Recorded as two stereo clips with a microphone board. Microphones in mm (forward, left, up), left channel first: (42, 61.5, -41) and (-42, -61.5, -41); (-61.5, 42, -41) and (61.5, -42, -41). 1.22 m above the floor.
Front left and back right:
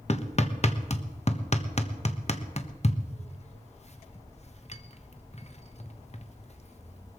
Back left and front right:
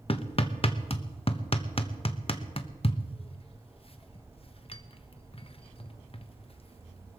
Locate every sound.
0.1 s hammering: 95° left, 1.1 m